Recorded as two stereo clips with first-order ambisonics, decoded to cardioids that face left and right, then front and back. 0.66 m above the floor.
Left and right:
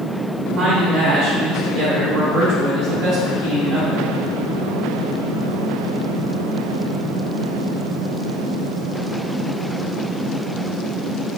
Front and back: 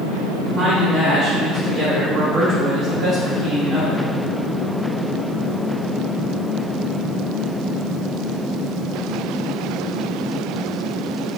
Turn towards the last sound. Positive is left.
turn(degrees=-130)